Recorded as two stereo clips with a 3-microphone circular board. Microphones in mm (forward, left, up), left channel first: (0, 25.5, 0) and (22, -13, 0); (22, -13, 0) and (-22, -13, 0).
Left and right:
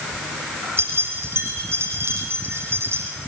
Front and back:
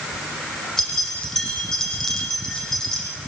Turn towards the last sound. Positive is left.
turn(degrees=-80)